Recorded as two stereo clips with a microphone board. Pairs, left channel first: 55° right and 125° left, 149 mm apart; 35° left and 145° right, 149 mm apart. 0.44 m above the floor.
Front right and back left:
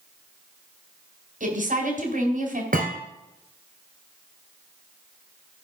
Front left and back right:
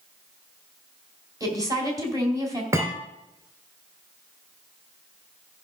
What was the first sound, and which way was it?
A woman speaking, 150° left.